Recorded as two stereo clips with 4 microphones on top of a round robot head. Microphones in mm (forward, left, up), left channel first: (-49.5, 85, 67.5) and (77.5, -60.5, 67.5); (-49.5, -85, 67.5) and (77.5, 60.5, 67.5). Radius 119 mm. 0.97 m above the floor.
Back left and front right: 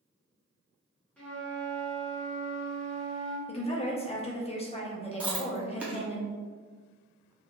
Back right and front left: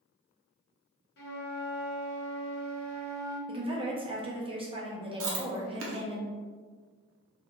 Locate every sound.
1.2 s a flute: 145° right, 0.8 m
3.5 s a woman speaking: 95° left, 0.7 m
5.2 s chewing: 35° left, 0.6 m